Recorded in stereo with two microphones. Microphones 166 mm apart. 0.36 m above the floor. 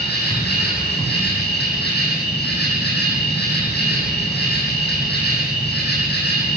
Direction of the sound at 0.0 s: 80° left.